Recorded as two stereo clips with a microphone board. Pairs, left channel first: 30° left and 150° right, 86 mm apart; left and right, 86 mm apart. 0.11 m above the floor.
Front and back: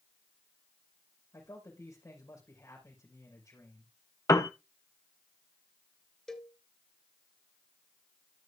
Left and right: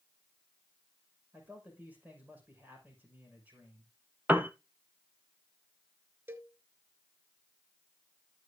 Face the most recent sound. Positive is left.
turn(degrees=-45)